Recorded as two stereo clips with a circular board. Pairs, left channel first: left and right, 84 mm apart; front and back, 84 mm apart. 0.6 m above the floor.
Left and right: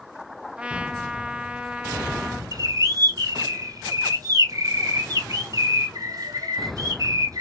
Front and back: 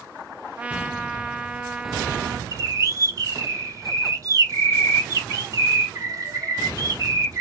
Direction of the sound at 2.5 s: 130° right.